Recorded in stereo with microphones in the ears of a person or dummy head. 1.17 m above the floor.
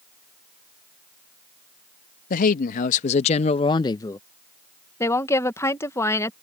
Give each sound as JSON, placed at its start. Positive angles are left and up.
{"t": 2.3, "sound": "a man speaking", "side_deg": 40}
{"t": 5.0, "sound": "a woman speaking", "side_deg": 20}